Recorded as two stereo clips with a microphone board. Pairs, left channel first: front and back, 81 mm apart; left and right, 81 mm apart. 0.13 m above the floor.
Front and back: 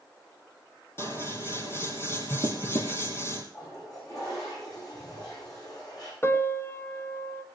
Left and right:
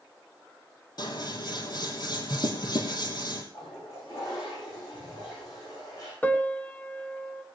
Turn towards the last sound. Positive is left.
turn(degrees=35)